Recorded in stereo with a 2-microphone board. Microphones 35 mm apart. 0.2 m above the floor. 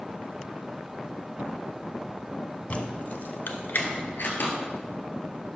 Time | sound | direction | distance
2.7 | keys jangling | 40° left (ahead or behind) | 0.9 m